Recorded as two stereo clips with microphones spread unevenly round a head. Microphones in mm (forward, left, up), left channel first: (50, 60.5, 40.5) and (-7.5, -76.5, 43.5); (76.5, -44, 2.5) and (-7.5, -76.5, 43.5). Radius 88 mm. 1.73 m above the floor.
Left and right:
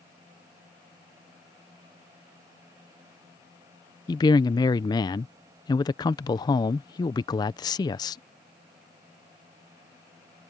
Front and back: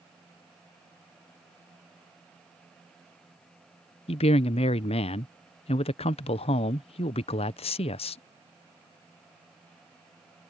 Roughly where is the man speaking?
Ahead.